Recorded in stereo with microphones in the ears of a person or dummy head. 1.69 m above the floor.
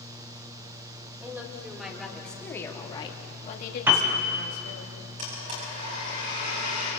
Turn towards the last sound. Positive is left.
turn(degrees=-35)  # may be behind; listen again after turning